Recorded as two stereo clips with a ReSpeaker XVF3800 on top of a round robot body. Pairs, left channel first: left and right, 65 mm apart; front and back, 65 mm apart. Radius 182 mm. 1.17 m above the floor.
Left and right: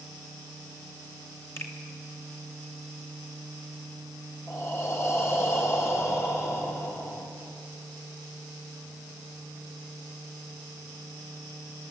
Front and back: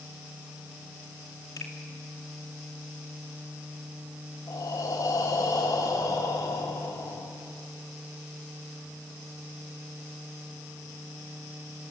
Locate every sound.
1.6 s a finger snap: 40° left, 2.5 m
4.5 s breathing: 35° left, 3 m